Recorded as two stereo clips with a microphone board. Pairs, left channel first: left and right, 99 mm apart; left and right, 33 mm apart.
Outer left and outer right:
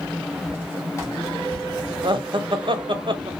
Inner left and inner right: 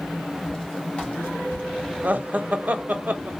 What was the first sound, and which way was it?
Footsteps, 20° left (ahead or behind).